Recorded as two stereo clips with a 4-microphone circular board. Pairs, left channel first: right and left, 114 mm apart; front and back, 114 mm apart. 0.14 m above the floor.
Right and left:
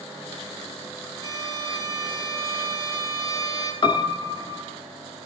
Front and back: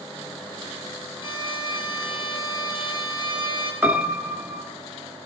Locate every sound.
1.2 s a violin: 35° right, 3 m
3.8 s a piano: 115° right, 1.1 m